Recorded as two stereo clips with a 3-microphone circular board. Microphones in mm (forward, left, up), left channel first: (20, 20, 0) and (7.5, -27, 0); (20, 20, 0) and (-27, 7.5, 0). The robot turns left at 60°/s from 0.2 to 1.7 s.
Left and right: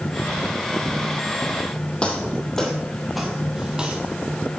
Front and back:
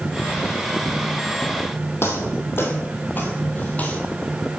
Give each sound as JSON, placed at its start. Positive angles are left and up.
{"t": 2.0, "sound": "footsteps", "azimuth_deg": 10, "distance_m": 2.0}